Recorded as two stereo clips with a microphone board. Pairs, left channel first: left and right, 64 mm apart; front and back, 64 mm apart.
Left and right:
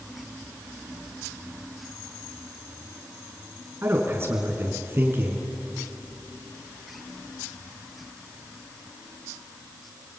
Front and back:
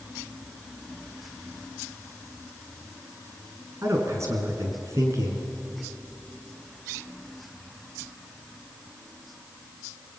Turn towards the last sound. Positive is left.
turn(degrees=-140)